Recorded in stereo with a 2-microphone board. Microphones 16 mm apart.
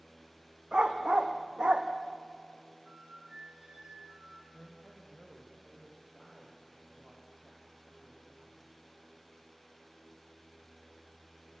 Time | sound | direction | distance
0.7 | a dog barking | 70° right (ahead or behind) | 2.5 m
2.9 | a flute | 55° right (ahead or behind) | 4.5 m
4.5 | a man speaking | 5° right (ahead or behind) | 4.5 m